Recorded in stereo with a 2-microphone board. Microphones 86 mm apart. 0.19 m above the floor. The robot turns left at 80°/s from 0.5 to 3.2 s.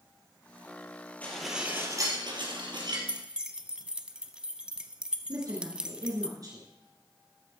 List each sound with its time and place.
1.2 s dishes clattering: 20° left, 3 m; by 3.0 s 125° right, 3 m
3.1 s keys jangling: 15° right (ahead or behind), 1.0 m; by 6.3 s 10° right (ahead or behind), 1.0 m
5.3 s a woman speaking: 45° right (ahead or behind), 3 m